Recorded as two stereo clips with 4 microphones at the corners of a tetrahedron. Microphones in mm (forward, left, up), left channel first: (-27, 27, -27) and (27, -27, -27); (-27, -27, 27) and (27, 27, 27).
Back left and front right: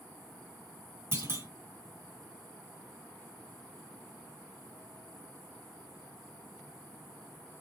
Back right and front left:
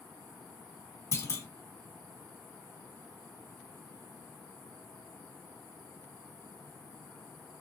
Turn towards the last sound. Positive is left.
turn(degrees=-90)